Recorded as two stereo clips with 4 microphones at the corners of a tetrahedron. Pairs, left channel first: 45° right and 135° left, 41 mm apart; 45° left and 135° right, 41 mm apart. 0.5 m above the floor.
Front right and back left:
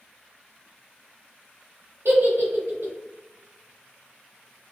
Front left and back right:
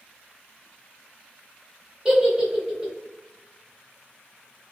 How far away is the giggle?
About 0.9 m.